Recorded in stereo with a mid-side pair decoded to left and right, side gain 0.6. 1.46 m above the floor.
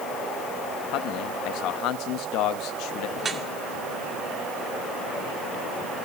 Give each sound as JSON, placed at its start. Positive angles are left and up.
{"t": 0.9, "sound": "a man speaking", "azimuth_deg": 70, "distance_m": 2.5}
{"t": 3.2, "sound": "dripping", "azimuth_deg": -30, "distance_m": 2.5}